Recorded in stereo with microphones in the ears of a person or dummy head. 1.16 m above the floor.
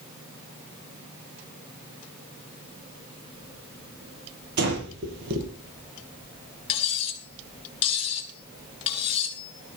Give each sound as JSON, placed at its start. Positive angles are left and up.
{"t": 4.6, "sound": "breathing", "side_deg": -65, "distance_m": 6.0}
{"t": 6.7, "sound": "cutlery clinking", "side_deg": 30, "distance_m": 4.0}